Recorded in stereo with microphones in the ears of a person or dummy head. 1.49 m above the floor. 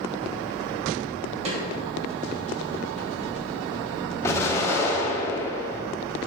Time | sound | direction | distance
1.4 | a snare drum | 35° right (ahead or behind) | 3 m
4.2 | an explosion | 15° left (ahead or behind) | 2.5 m